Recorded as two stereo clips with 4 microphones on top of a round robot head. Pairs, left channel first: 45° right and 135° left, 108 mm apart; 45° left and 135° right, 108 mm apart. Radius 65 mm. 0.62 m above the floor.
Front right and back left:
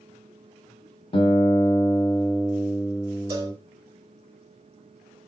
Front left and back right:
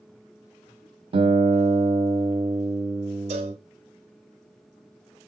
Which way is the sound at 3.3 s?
165° right.